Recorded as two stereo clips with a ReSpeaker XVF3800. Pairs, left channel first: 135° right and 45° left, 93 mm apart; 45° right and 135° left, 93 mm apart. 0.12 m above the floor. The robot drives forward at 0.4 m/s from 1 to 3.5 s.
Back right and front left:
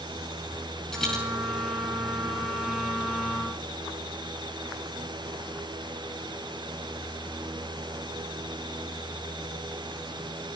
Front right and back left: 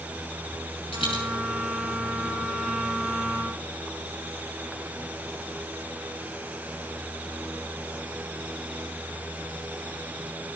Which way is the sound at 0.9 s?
55° right.